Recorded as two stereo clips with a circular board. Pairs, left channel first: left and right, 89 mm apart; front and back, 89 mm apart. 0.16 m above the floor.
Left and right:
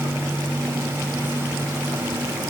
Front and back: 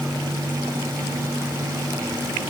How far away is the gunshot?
I don't hear a gunshot.